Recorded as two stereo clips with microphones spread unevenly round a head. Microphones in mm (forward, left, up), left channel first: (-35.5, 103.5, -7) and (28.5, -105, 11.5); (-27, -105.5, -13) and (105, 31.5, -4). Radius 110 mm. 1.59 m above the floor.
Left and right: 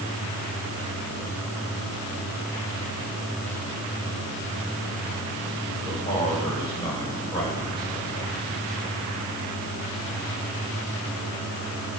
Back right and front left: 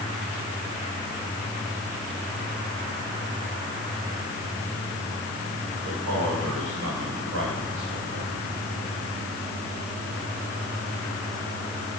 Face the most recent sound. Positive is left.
turn(degrees=35)